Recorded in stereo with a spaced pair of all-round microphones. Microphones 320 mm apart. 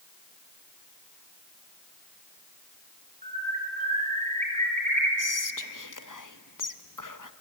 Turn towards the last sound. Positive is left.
turn(degrees=75)  # may be behind; listen again after turning